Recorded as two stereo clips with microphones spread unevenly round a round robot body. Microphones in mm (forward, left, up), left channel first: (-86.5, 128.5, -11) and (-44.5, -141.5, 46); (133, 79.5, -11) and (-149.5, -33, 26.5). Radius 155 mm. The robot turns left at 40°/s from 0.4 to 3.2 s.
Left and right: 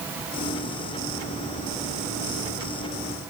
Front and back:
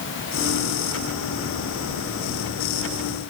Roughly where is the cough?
I don't hear a cough.